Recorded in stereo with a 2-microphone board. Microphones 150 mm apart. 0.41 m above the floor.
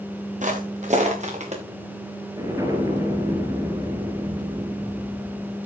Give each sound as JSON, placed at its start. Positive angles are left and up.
{"t": 0.4, "sound": "footsteps", "side_deg": -55, "distance_m": 3.5}
{"t": 2.4, "sound": "an explosion", "side_deg": -20, "distance_m": 3.0}